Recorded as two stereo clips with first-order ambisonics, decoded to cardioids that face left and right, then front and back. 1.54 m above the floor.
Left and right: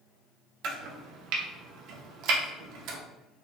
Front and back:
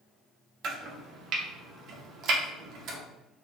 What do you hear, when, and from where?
0.6 s chopping: 130° right, 0.7 m